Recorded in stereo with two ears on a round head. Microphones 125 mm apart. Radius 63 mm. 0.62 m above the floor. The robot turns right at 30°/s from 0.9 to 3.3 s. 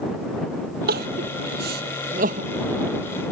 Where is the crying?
80° right; by 2.5 s 55° right (ahead or behind).